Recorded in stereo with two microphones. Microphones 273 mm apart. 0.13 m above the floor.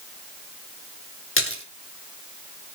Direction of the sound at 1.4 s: 50° left (ahead or behind).